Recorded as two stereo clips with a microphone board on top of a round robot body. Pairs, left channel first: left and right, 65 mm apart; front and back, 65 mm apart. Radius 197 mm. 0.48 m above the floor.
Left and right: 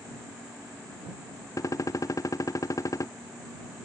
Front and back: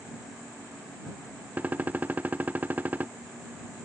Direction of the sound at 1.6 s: 115° left.